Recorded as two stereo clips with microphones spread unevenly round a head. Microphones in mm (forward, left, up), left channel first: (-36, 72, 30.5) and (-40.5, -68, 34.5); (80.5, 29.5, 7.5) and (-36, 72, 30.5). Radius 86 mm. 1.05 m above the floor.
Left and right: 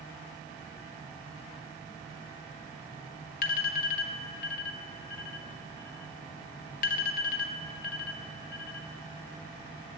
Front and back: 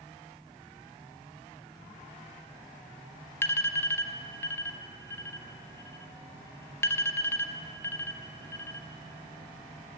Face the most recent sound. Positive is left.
turn(degrees=50)